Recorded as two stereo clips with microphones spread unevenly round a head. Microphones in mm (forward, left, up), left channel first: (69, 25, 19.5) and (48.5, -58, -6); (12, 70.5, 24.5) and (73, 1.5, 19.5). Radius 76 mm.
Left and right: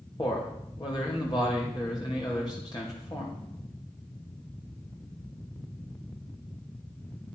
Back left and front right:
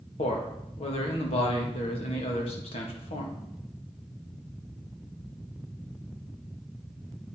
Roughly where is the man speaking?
Behind left.